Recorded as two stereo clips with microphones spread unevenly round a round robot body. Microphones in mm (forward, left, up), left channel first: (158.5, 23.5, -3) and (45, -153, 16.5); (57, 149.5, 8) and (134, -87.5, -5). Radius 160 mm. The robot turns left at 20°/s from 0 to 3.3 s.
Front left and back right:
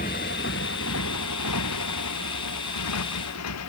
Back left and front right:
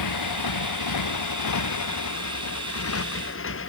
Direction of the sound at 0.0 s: 125° left.